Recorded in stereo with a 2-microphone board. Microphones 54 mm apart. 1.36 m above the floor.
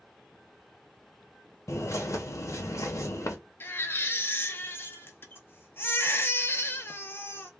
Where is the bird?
60° left (ahead or behind), 0.7 m.